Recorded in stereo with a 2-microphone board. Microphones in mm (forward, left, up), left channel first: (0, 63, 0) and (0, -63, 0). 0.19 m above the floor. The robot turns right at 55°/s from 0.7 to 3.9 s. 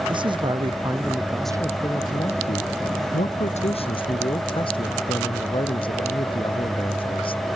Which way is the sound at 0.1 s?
40° right.